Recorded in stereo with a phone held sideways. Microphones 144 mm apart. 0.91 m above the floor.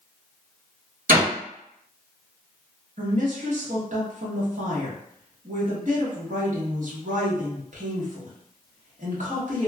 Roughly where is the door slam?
Right.